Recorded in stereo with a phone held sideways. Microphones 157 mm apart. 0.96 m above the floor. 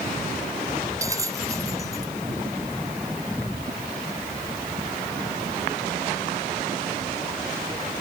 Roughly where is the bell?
Right.